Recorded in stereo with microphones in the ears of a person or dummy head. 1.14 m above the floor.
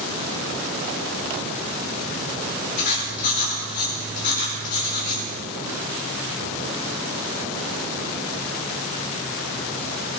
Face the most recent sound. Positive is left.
turn(degrees=50)  # may be behind; listen again after turning